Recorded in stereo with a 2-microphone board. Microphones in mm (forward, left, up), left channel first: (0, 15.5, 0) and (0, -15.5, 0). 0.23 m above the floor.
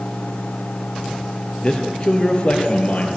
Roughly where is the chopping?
No chopping in this recording.